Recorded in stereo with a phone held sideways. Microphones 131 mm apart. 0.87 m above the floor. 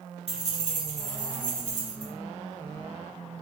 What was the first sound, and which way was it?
Keys jangling, 50° right (ahead or behind).